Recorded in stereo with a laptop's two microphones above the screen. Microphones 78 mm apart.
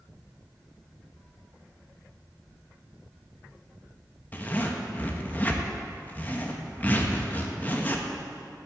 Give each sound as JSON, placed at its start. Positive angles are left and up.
{"t": 4.3, "sound": "a zipper", "side_deg": 25, "distance_m": 0.8}